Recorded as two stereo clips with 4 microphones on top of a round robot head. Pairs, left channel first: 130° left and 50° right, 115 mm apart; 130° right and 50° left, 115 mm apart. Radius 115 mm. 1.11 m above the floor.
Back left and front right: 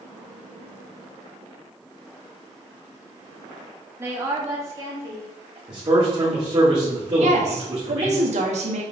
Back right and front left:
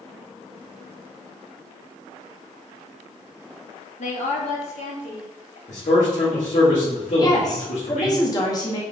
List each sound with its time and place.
4.0 s a woman speaking: 120° right, 2.5 m; by 5.6 s 115° right, 3.5 m
5.7 s a man speaking: 110° right, 3 m
7.2 s a woman speaking: 70° right, 2.0 m